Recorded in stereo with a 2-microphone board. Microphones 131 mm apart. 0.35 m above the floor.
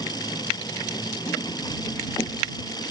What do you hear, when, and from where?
0.0 s an engine running: 30° left (ahead or behind)